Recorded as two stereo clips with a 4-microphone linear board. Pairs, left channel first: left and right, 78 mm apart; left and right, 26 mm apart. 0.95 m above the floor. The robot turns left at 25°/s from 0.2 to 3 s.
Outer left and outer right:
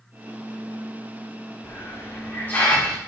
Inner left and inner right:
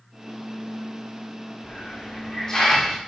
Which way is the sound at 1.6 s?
45° left.